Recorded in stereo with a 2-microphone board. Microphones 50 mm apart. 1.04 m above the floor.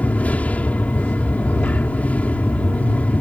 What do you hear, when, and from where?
0.0 s an aircraft: 30° left (ahead or behind)